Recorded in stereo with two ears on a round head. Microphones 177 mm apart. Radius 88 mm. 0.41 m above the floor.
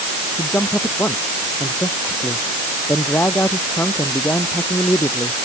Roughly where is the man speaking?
Centre.